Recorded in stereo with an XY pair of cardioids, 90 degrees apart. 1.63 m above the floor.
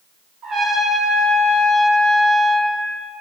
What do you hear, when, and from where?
0.4 s a trumpet: 65° right, 0.8 m